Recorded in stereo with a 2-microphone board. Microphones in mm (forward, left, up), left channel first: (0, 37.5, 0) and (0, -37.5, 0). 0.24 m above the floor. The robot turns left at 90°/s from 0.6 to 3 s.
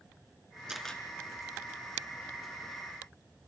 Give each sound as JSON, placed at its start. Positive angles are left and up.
{"t": 0.7, "sound": "a camera shutter", "azimuth_deg": -170, "distance_m": 3.5}